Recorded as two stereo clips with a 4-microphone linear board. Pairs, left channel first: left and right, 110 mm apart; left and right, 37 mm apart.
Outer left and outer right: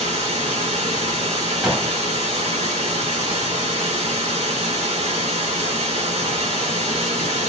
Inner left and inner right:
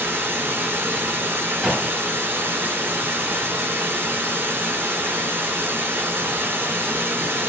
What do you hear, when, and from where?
0.0 s running water: 80° right, 2 m
1.6 s a gunshot: 5° right (ahead or behind), 2.5 m